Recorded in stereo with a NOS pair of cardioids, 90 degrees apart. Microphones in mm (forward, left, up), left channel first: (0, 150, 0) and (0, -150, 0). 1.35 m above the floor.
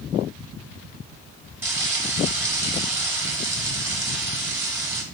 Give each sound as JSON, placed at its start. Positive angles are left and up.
{"t": 1.6, "sound": "frying", "azimuth_deg": -5, "distance_m": 1.0}